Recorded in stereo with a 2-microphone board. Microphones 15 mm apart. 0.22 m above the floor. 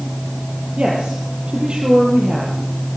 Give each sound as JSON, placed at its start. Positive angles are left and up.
{"t": 0.8, "sound": "a woman speaking", "side_deg": -60, "distance_m": 5.5}